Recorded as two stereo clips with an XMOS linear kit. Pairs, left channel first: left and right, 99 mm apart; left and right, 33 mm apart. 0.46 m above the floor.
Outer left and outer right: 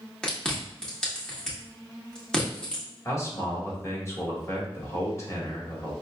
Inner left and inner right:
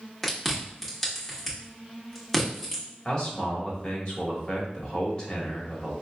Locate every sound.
0.2 s chewing: 10° left (ahead or behind), 1.4 m
3.0 s a man speaking: 30° left (ahead or behind), 1.6 m